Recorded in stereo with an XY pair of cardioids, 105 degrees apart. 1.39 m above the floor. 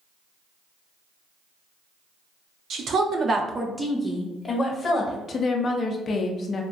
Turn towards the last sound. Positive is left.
turn(degrees=45)